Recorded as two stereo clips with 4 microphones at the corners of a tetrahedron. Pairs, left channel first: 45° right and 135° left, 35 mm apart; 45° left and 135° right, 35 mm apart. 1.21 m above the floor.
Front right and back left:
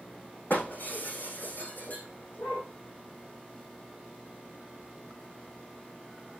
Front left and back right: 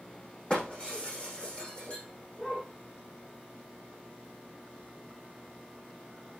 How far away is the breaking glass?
About 7 m.